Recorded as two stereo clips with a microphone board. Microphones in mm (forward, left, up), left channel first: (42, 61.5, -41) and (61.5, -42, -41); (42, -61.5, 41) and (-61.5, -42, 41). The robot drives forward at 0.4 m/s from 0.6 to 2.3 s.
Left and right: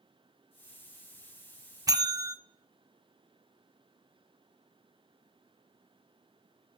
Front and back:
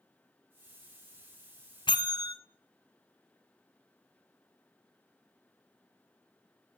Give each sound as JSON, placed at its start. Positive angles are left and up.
{"t": 1.9, "sound": "a bell", "azimuth_deg": -40, "distance_m": 0.6}